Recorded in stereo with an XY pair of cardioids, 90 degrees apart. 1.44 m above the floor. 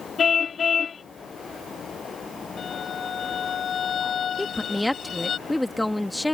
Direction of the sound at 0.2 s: 50° left.